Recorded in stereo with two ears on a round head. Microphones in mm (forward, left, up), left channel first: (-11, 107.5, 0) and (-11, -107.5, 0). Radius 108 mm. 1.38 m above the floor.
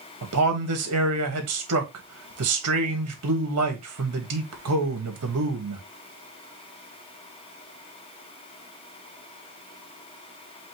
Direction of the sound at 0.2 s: 70° right (ahead or behind).